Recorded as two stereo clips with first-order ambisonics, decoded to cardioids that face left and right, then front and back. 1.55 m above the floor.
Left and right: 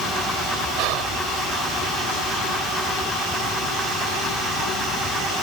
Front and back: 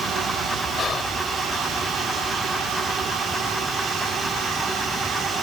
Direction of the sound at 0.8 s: 70° right.